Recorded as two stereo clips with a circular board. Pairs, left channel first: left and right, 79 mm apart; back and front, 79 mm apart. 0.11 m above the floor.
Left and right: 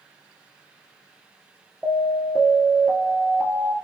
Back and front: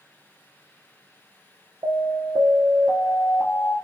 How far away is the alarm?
About 1.5 m.